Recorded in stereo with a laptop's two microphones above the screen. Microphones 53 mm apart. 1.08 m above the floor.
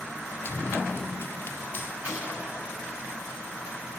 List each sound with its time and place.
0.5 s running footsteps: 45° left (ahead or behind), 1.4 m; by 1.9 s 40° left (ahead or behind), 1.9 m
2.0 s a gunshot: 25° right (ahead or behind), 6 m